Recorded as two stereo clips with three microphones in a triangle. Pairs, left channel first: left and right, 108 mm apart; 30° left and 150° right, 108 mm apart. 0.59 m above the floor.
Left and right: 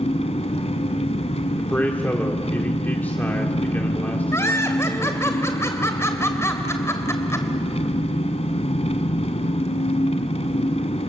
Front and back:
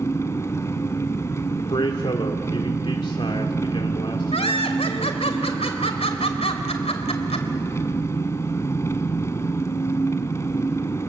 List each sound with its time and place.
0.0 s an engine running: 95° left, 1.6 m
1.6 s a man speaking: 20° left, 1.8 m
4.3 s laughter: 30° left, 2.5 m